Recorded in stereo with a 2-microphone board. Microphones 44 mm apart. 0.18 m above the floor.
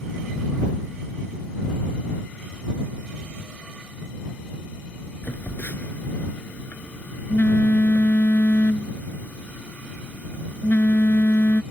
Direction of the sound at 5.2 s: 50° left (ahead or behind).